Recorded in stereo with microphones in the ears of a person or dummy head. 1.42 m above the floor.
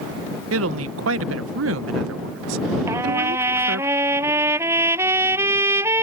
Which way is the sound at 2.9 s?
15° right (ahead or behind).